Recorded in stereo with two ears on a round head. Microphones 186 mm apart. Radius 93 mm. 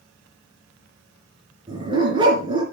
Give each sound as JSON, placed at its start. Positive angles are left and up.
{"t": 1.7, "sound": "a dog barking", "side_deg": -25, "distance_m": 3.0}